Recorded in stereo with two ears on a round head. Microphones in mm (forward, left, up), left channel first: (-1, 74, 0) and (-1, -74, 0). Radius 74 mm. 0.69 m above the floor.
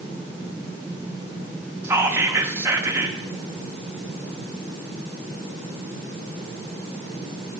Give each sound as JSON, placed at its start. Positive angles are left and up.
{"t": 1.8, "sound": "whispering", "side_deg": -15, "distance_m": 0.6}